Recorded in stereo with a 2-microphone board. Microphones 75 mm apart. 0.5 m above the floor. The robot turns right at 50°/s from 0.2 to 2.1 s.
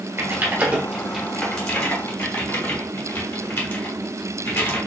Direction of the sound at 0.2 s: 35° right (ahead or behind).